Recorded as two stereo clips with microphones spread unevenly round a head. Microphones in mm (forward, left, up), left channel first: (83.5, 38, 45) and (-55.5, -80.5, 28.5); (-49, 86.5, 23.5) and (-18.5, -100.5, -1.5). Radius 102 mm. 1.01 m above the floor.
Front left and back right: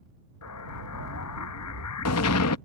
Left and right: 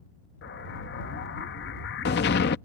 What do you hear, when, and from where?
0.4 s an explosion: 50° left